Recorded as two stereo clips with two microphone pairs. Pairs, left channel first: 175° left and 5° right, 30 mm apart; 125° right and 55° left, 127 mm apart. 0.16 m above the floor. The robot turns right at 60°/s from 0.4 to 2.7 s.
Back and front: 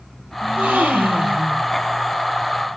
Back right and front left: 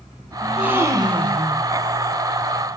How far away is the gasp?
About 1.4 m.